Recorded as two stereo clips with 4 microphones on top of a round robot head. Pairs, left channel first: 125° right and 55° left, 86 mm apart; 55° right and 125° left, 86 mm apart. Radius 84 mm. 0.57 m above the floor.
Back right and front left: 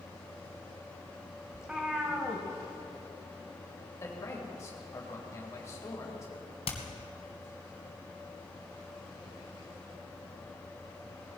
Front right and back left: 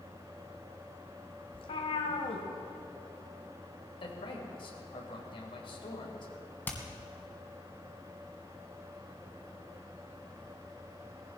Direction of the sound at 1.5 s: 30° right.